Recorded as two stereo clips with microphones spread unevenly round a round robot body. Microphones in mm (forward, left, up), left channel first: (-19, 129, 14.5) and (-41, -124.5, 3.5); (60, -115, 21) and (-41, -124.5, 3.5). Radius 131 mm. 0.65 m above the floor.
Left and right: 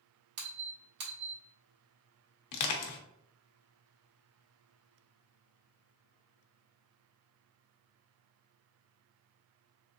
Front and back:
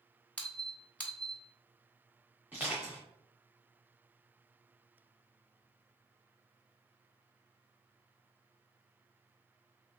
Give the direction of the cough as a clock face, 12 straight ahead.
No cough in this recording.